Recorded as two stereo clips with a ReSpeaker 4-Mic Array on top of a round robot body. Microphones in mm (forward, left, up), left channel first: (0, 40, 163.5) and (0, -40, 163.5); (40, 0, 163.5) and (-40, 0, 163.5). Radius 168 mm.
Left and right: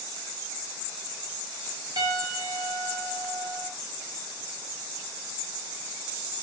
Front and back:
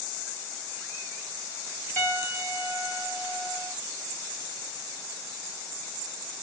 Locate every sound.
2.0 s a piano: 65° right, 3.5 m